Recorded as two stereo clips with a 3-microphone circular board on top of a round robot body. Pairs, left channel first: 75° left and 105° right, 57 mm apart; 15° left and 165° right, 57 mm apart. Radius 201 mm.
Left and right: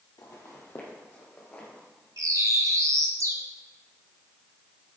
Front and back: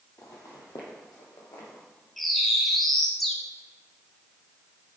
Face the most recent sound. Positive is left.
turn(degrees=-75)